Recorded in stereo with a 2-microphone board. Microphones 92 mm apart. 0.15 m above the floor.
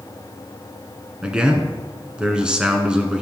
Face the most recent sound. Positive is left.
turn(degrees=-10)  # may be behind; listen again after turning